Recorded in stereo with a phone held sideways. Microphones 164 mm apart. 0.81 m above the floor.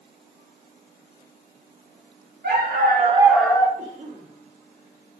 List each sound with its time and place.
2.4 s a dog barking: 80° right, 1.1 m; by 3.7 s 25° left (ahead or behind), 0.7 m
3.8 s a cough: 55° right (ahead or behind), 1.7 m